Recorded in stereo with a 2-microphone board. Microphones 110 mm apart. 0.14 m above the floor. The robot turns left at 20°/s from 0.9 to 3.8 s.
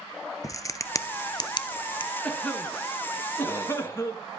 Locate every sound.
0.4 s a crack: 30° left (ahead or behind), 0.6 m; by 2.1 s 50° left (ahead or behind), 0.6 m
2.2 s a cough: 10° left (ahead or behind), 1.3 m; by 4.2 s 25° left (ahead or behind), 1.3 m